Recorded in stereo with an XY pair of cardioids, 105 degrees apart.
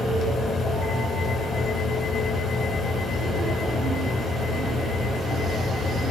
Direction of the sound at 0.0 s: 60° left.